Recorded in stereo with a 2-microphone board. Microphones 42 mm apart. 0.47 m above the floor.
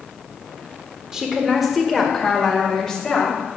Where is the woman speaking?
10° right (ahead or behind), 1.5 m; by 3.4 s 15° left (ahead or behind), 3 m.